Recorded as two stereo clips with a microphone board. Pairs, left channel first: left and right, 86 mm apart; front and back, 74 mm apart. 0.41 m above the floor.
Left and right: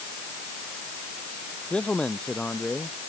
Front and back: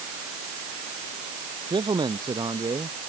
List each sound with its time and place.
1.7 s a man speaking: 170° left